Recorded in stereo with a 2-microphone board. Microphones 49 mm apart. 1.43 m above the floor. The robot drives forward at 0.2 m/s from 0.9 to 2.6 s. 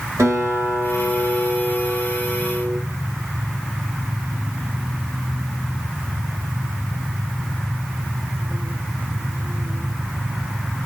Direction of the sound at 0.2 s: 85° right.